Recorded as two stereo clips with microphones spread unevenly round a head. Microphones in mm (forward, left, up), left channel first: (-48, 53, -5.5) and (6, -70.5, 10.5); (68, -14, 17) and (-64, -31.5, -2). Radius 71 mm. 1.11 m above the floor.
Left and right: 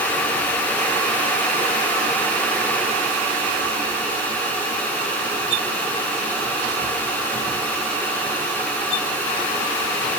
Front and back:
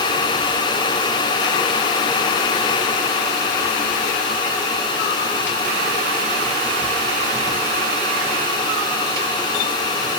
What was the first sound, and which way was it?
Only background noise.